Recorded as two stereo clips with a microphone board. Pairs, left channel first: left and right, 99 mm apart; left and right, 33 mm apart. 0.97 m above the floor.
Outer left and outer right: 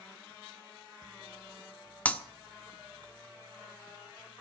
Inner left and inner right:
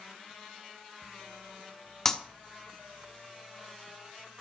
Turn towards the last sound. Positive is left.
turn(degrees=15)  # may be behind; listen again after turning